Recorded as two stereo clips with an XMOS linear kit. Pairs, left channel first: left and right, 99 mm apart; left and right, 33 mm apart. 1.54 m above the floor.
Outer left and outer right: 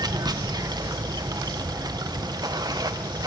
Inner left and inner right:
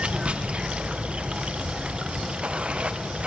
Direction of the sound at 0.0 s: 40° right (ahead or behind).